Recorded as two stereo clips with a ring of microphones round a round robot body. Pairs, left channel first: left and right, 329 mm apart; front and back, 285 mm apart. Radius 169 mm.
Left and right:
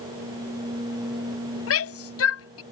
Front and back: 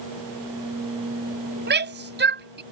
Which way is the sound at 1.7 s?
130° left.